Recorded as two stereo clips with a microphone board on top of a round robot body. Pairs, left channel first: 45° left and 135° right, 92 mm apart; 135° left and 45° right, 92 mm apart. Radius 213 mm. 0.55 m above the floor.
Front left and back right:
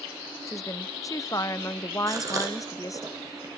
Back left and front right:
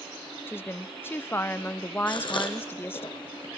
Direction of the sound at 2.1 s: 170° left.